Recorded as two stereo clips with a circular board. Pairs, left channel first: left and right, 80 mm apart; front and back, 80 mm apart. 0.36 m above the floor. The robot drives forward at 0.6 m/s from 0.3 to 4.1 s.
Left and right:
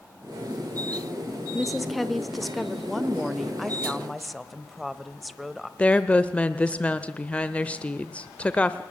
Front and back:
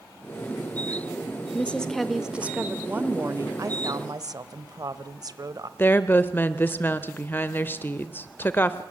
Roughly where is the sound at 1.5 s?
Ahead.